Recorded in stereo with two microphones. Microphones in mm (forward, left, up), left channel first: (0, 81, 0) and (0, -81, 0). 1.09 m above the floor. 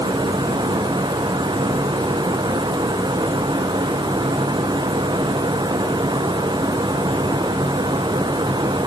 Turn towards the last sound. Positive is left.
No sound to turn to.